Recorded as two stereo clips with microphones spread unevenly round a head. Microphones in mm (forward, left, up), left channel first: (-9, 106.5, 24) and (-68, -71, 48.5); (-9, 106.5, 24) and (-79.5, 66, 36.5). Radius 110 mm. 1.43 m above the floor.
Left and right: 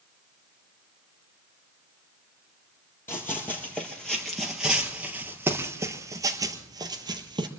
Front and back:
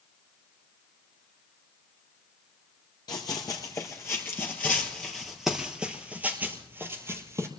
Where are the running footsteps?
15° right, 1.8 m; by 7.5 s 155° right, 1.8 m.